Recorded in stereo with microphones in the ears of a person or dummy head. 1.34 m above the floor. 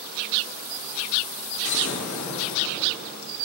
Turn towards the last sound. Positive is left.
turn(degrees=70)  # may be behind; listen again after turning